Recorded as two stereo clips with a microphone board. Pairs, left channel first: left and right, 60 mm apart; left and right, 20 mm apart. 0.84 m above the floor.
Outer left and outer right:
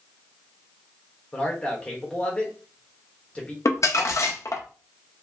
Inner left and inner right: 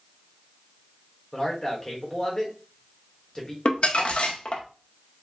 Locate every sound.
1.3 s a man speaking: 25° left (ahead or behind), 1.1 m
3.6 s crumpling: 60° left (ahead or behind), 0.6 m